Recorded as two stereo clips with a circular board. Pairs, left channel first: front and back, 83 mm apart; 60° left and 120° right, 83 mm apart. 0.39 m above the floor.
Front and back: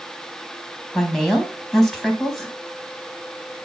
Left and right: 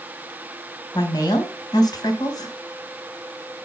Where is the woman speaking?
90° left, 3.5 m.